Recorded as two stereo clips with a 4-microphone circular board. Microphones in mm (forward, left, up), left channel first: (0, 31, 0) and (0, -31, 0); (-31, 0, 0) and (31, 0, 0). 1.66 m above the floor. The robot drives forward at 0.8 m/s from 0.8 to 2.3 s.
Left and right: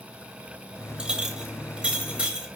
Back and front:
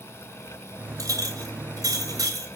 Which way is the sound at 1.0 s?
20° right.